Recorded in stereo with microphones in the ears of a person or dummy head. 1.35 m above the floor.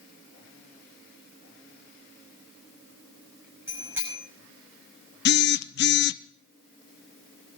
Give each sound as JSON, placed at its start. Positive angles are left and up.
{"t": 3.7, "sound": "a bicycle bell", "side_deg": -20, "distance_m": 6.0}
{"t": 5.2, "sound": "a phone buzzing", "side_deg": 50, "distance_m": 0.7}